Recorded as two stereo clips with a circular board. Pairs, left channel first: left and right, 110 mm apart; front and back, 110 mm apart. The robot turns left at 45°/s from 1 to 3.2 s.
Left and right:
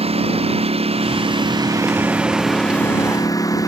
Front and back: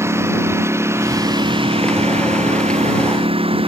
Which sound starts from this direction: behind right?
A lawn mower, at 0.0 s.